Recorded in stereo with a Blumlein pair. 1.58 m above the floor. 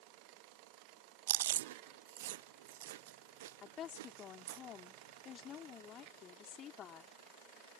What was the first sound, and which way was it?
Chewing, 55° right.